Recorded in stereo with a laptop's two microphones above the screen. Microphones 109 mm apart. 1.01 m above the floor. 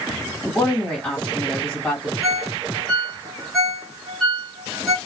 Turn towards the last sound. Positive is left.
turn(degrees=0)  # may be behind; listen again after turning